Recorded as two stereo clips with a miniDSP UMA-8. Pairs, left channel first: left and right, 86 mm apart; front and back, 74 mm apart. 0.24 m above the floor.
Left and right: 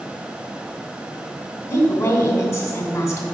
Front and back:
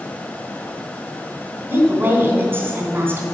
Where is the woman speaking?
145° left, 1.8 m.